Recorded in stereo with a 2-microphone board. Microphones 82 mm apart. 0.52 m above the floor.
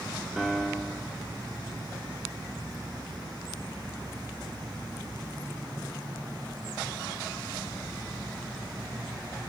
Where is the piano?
5° right (ahead or behind), 0.9 m.